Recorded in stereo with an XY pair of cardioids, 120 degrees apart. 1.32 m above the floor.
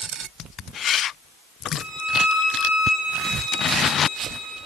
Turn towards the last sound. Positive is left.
turn(degrees=60)